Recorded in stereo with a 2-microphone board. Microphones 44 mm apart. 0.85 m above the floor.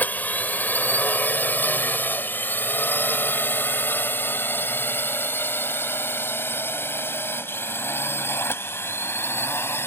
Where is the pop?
No pop in this recording.